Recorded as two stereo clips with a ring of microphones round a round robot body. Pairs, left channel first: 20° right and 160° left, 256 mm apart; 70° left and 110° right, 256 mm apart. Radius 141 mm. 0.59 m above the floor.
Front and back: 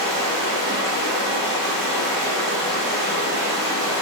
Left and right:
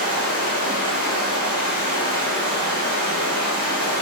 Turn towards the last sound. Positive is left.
turn(degrees=-25)